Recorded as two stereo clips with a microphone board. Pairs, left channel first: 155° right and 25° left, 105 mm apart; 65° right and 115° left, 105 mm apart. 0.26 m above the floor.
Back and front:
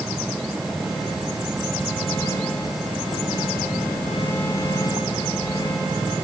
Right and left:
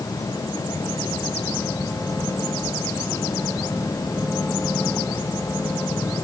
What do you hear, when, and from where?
Only background noise.